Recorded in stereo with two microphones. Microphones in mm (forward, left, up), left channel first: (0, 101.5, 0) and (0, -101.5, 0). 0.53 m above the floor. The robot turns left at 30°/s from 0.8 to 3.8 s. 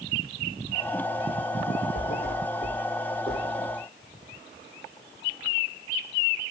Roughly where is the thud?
Left.